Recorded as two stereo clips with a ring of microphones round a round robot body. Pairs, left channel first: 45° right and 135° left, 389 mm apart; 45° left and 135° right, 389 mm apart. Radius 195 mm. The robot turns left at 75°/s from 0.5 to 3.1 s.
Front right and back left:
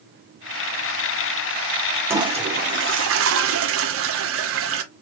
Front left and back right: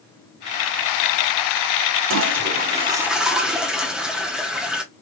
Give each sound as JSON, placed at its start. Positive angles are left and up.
{"t": 2.1, "sound": "a toilet flushing", "azimuth_deg": -145, "distance_m": 0.8}